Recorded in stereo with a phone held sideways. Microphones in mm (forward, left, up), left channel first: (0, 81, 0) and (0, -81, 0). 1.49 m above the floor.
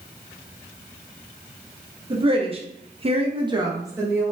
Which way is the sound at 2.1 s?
30° right (ahead or behind).